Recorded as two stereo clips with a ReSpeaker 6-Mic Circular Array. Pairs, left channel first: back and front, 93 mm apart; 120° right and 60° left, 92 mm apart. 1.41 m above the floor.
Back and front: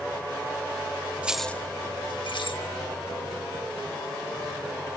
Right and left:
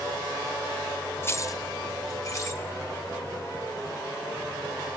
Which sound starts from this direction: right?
Keys jangling, at 1.2 s.